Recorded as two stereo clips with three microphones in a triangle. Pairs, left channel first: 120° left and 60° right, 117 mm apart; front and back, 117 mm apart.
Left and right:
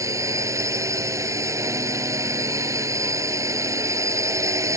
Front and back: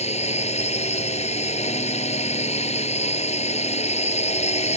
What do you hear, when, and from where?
0.0 s a drone: straight ahead